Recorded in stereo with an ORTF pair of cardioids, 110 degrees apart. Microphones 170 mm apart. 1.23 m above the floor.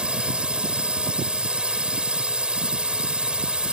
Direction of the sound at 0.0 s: 5° right.